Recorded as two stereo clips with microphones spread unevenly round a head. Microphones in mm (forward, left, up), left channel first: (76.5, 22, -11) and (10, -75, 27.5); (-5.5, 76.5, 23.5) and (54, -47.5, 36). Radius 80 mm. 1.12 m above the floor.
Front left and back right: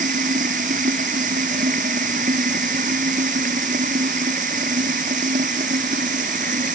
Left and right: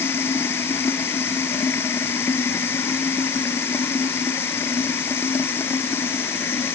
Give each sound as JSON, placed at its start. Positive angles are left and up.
{"t": 0.0, "sound": "running water", "azimuth_deg": -170}